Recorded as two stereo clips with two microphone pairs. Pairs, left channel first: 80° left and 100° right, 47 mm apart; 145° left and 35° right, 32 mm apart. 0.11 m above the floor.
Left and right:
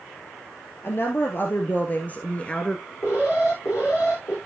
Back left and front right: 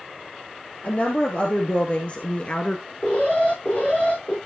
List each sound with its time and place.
0.8 s a woman speaking: 105° left, 2.5 m; by 2.8 s 140° left, 1.5 m
3.0 s an alarm: 110° left, 6 m